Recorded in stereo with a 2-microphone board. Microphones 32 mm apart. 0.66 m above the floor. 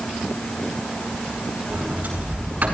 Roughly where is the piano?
No piano in this recording.